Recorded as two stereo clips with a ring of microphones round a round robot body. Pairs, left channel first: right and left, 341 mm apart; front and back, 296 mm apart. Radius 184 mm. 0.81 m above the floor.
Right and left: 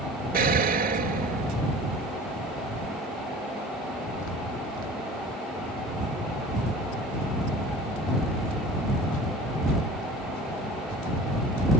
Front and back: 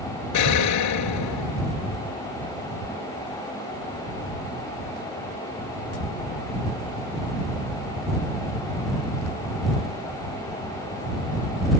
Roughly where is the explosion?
Ahead left.